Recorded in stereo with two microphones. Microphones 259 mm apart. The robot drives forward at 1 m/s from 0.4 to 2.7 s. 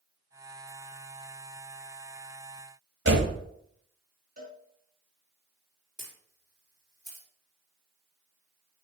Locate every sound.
3.0 s a door slam: 45° right (ahead or behind), 1.6 m
4.4 s a cowbell: 35° right (ahead or behind), 2.5 m
6.0 s a camera shutter: 15° right (ahead or behind), 4.5 m